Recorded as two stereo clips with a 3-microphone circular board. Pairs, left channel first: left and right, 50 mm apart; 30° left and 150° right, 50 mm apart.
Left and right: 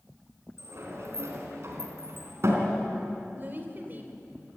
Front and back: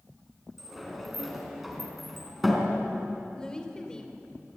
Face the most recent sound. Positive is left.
turn(degrees=-45)